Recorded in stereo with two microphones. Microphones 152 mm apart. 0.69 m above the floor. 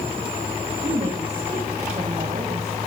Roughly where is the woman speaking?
Right.